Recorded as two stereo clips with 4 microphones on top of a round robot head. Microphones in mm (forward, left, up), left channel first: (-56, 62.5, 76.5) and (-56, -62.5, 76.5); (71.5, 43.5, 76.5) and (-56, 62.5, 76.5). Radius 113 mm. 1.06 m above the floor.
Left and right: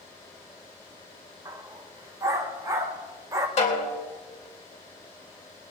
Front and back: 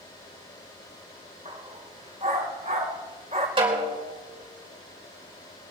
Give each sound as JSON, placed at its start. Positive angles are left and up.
{"t": 1.4, "sound": "a dog barking", "azimuth_deg": -145, "distance_m": 0.8}
{"t": 3.6, "sound": "a snare drum", "azimuth_deg": 120, "distance_m": 3.5}